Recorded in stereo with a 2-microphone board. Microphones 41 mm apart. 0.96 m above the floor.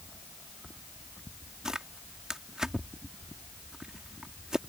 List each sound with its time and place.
1.6 s tearing paper: 15° right (ahead or behind)